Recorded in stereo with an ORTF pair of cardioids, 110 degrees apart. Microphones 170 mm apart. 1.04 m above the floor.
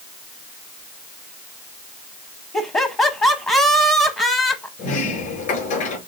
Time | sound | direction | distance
2.5 | laughter | 15° left | 1.0 m
4.8 | a sliding door | 55° left | 4.5 m